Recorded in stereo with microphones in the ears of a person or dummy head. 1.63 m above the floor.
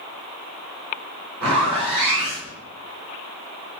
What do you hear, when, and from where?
1.4 s a zipper: 5° left (ahead or behind), 1.4 m